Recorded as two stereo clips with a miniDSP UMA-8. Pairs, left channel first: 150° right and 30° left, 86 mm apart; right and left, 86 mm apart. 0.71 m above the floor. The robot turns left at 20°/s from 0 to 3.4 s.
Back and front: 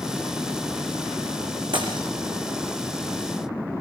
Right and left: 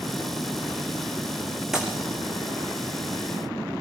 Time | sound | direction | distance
1.7 | breaking glass | 5° left | 5 m